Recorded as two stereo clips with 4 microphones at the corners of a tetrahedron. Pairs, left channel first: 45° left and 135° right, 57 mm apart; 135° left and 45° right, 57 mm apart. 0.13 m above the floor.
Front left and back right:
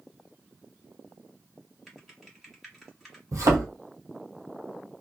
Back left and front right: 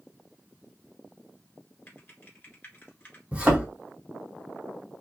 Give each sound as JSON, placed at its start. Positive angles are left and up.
{"t": 1.9, "sound": "typing on a keyboard", "azimuth_deg": 130, "distance_m": 1.5}
{"t": 3.3, "sound": "a thud", "azimuth_deg": -115, "distance_m": 1.4}